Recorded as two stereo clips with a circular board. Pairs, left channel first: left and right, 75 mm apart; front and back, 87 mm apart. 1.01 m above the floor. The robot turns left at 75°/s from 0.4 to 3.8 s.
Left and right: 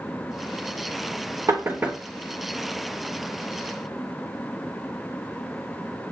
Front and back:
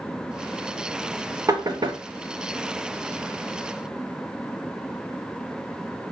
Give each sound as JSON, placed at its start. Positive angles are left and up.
{"t": 1.5, "sound": "knocking", "azimuth_deg": -130, "distance_m": 0.8}